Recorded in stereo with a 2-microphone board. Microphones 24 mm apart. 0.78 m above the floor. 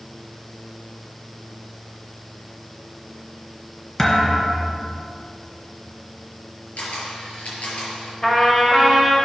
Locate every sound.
4.0 s a thud: 20° left (ahead or behind), 2 m
6.8 s a camera shutter: 75° left (ahead or behind), 5 m
8.2 s a trumpet: 20° left (ahead or behind), 3 m